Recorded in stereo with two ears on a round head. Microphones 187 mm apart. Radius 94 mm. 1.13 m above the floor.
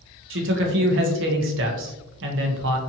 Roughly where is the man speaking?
Right.